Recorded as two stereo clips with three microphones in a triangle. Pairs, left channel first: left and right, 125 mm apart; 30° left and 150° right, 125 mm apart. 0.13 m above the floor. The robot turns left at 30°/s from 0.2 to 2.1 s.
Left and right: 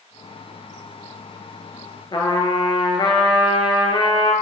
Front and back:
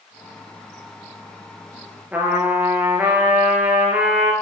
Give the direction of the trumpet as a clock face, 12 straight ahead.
8 o'clock.